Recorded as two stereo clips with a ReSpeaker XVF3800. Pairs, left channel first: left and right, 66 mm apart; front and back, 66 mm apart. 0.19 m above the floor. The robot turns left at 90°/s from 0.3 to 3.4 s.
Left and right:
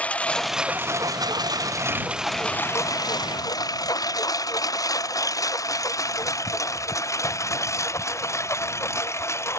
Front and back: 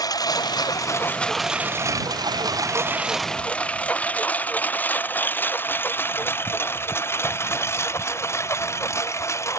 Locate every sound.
0.0 s a lawn mower: 20° left; by 9.6 s 45° left